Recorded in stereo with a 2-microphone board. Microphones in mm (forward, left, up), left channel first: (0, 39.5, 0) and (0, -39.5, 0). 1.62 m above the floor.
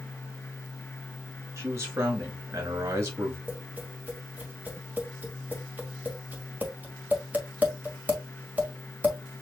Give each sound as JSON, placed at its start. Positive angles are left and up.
{"t": 1.6, "sound": "a man speaking", "side_deg": -40, "distance_m": 3.0}
{"t": 3.5, "sound": "tapping", "side_deg": -20, "distance_m": 1.7}